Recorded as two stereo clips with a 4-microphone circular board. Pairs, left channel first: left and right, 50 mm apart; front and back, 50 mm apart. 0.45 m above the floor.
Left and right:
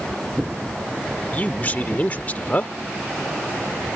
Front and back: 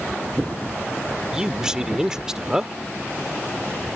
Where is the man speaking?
115° left.